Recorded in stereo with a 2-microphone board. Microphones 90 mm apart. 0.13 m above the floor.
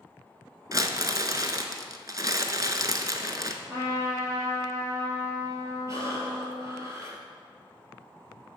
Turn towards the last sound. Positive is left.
turn(degrees=-35)  # may be behind; listen again after turning